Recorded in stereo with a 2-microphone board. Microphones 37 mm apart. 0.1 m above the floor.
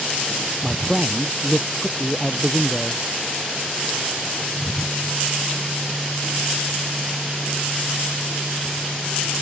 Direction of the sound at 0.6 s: 10° right (ahead or behind).